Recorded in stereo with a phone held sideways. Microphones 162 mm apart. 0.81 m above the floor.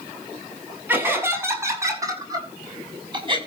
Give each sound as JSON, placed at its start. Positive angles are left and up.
{"t": 0.9, "sound": "laughter", "side_deg": -15, "distance_m": 6.5}